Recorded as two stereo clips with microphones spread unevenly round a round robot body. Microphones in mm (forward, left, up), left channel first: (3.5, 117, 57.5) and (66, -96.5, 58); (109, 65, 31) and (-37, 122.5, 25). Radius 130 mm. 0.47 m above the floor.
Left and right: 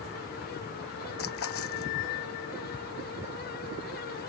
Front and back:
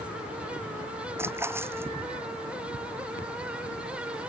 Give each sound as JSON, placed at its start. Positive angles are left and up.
{"t": 1.2, "sound": "a splash", "azimuth_deg": 85}